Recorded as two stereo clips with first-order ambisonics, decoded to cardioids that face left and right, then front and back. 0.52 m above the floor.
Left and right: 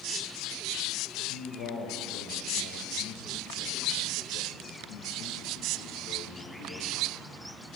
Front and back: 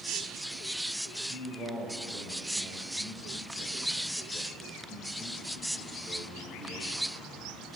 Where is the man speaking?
110° left, 1.9 m.